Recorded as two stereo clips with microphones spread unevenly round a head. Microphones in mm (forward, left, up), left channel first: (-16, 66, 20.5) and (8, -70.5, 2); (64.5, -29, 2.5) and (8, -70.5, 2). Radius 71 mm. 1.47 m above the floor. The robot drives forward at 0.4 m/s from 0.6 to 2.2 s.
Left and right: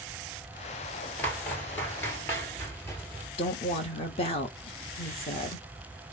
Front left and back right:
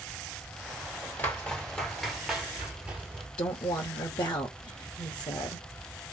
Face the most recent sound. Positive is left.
turn(degrees=50)